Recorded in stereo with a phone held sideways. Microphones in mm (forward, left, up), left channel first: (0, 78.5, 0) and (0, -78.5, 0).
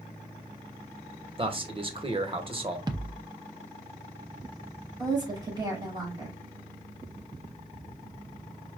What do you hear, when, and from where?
1.4 s a man speaking: 35° right (ahead or behind), 0.9 m
2.9 s a thud: 25° right (ahead or behind), 0.6 m
5.0 s a woman speaking: 30° right (ahead or behind), 3 m